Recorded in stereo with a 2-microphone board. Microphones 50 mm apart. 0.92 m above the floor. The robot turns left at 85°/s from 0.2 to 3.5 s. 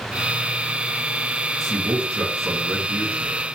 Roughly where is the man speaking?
Ahead.